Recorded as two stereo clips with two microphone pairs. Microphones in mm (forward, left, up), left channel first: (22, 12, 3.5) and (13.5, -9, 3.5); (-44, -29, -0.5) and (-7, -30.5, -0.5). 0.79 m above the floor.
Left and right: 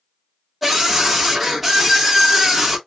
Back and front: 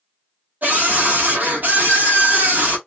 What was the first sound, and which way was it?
A scream, 30° right.